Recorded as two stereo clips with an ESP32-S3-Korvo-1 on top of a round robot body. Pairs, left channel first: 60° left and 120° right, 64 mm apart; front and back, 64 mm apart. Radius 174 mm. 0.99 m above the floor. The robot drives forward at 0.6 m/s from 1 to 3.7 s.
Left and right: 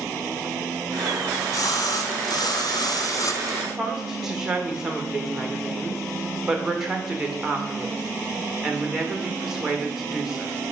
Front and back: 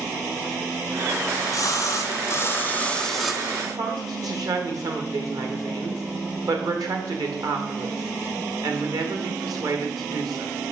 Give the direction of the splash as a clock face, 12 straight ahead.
11 o'clock.